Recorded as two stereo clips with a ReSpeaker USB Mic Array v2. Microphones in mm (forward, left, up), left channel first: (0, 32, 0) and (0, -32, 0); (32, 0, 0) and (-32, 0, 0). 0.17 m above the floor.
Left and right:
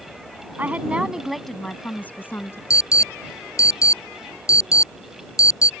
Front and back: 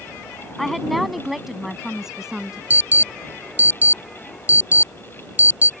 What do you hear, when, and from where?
0.6 s a woman speaking: 85° right; by 2.6 s 105° left
2.7 s an alarm: 120° left